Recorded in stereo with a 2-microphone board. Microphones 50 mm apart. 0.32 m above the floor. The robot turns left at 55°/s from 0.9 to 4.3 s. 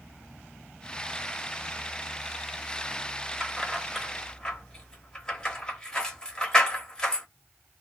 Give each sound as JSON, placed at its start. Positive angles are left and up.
{"t": 3.4, "sound": "keys jangling", "side_deg": -15, "distance_m": 0.8}